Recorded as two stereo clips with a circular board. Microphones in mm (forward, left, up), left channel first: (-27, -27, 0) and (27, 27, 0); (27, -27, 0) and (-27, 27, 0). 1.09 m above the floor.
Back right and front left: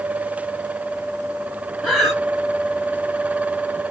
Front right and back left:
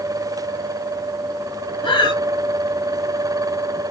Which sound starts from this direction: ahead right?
Breathing, at 1.8 s.